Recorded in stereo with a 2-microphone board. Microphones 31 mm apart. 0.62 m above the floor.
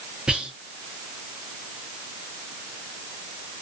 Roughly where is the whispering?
Right.